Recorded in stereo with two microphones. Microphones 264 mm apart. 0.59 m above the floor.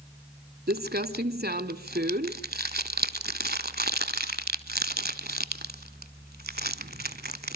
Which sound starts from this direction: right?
Crumpling, at 0.7 s.